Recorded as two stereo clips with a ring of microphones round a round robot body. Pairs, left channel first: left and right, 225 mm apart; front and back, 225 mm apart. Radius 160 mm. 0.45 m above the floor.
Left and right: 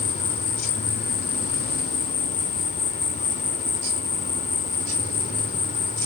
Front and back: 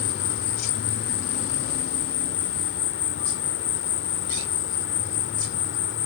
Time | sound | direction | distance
0.0 | an insect | 30° left | ?